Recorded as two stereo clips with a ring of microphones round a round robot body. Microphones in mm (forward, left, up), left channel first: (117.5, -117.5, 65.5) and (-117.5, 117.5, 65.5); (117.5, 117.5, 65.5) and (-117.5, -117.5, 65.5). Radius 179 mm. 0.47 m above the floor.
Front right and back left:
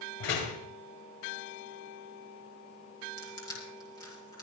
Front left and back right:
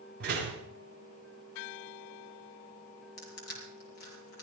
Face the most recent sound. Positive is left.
turn(degrees=35)